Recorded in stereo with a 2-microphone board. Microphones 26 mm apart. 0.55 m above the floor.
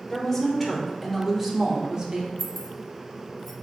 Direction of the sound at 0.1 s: 15° left (ahead or behind).